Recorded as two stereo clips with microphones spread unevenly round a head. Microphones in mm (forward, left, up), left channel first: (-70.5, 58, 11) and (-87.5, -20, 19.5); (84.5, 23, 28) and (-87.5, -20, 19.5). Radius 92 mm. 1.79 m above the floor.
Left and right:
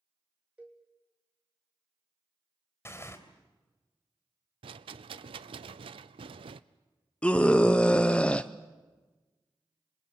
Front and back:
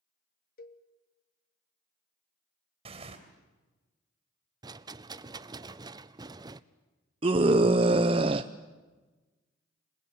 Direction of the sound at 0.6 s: 25° right.